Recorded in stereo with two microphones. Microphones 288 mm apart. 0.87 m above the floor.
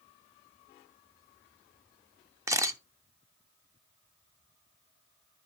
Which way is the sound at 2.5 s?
10° right (ahead or behind).